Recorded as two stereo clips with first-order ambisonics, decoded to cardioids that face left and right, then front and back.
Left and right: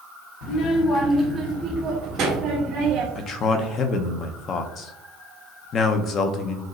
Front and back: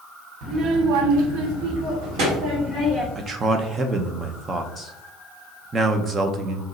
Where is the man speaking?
120° left, 0.5 m.